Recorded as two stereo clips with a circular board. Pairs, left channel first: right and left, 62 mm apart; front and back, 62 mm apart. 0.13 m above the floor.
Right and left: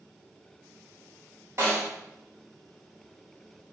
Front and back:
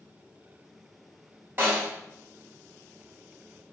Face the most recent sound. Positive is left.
turn(degrees=130)